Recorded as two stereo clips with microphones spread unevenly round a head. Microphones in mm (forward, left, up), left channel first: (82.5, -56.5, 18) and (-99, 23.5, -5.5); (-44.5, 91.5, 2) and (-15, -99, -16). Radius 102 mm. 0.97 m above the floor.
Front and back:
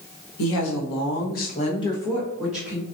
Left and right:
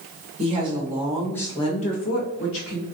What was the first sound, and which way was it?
A woman speaking, 25° right.